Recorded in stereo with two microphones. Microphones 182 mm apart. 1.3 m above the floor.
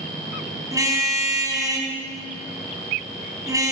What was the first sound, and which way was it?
A car horn, 20° right (ahead or behind).